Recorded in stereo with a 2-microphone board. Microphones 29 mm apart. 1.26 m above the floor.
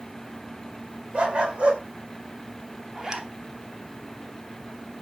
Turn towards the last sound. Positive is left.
turn(degrees=-25)  # may be behind; listen again after turning